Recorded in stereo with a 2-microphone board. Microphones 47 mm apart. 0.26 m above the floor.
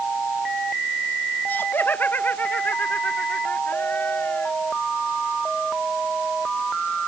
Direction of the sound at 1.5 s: 45° left (ahead or behind).